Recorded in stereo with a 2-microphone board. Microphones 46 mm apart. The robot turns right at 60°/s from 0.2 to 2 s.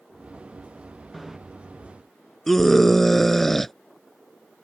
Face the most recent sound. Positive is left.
turn(degrees=5)  # may be behind; listen again after turning